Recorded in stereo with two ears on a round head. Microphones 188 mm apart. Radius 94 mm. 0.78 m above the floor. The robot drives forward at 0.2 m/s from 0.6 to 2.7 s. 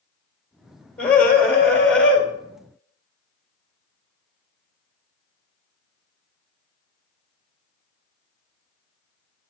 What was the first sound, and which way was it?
A scream, 5° left (ahead or behind).